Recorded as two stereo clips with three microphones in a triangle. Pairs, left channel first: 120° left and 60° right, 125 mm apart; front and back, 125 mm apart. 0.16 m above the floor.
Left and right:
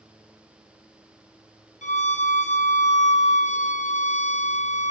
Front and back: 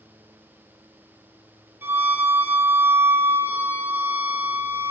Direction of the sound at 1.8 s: 105° left.